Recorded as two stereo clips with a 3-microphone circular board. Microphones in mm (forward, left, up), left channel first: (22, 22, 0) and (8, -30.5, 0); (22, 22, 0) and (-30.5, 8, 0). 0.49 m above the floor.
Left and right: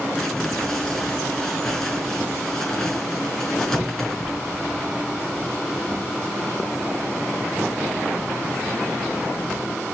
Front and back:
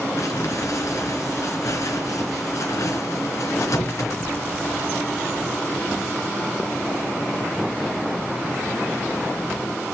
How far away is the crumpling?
About 4 m.